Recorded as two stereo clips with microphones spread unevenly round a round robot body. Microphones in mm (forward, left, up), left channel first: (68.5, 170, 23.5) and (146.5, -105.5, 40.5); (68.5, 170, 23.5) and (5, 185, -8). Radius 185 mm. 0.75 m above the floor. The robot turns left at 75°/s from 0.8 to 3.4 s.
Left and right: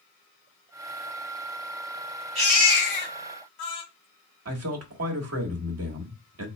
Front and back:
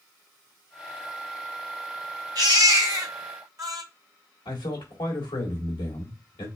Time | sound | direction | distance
2.4 | a baby crying | 150° right | 1.7 m
4.5 | a man speaking | 35° right | 1.4 m